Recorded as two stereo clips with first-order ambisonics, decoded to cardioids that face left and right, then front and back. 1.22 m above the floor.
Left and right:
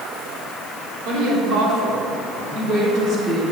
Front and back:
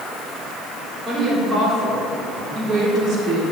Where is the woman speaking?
105° right, 4.5 m; by 3.4 s 140° right, 4 m.